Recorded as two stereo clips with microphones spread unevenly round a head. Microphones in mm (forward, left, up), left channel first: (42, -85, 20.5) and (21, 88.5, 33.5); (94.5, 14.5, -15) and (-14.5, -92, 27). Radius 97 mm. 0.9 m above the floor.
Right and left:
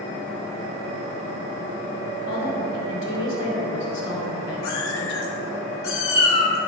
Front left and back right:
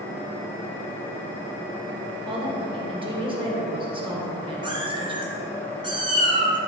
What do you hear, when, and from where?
2.1 s a woman speaking: 75° right, 2.5 m
4.6 s a cat meowing: 85° right, 2.5 m